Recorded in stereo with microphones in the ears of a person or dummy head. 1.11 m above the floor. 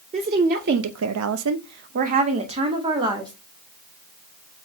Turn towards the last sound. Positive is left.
turn(degrees=-25)  # may be behind; listen again after turning